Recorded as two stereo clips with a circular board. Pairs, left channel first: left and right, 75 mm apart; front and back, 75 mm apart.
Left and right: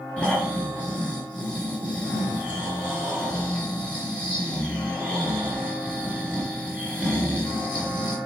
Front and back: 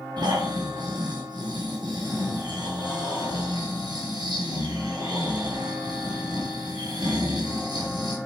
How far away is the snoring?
About 4.5 m.